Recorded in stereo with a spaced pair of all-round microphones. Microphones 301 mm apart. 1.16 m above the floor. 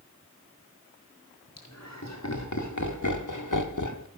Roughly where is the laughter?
Left.